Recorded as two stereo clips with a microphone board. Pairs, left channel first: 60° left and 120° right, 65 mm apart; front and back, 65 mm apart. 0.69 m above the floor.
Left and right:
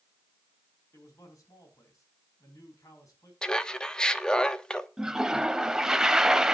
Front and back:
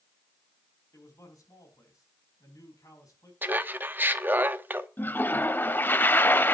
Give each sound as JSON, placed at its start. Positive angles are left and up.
{"t": 0.9, "sound": "a man speaking", "azimuth_deg": 25, "distance_m": 5.0}
{"t": 3.4, "sound": "laughter", "azimuth_deg": 135, "distance_m": 1.0}
{"t": 5.0, "sound": "a toilet flushing", "azimuth_deg": -45, "distance_m": 0.6}